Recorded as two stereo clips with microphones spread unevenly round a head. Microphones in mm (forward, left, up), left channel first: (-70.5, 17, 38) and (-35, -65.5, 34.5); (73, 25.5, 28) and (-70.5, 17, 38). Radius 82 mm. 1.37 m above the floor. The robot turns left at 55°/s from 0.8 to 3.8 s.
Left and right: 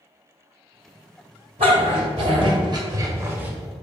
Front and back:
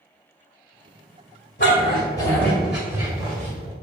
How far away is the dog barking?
About 1.7 m.